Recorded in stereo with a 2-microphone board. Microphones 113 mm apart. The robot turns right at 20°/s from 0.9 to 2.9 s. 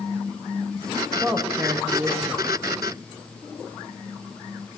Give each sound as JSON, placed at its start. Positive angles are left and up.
{"t": 1.2, "sound": "a man speaking", "side_deg": -5, "distance_m": 1.0}